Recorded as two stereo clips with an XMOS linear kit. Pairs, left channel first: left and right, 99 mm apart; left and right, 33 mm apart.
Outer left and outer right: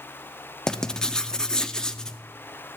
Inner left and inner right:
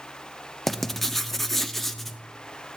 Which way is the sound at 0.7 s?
5° left (ahead or behind).